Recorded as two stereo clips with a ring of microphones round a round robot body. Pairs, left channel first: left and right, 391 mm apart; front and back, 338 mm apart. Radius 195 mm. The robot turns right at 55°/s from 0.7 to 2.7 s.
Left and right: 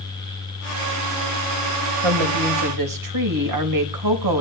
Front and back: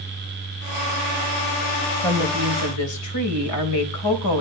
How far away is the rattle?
No rattle in this recording.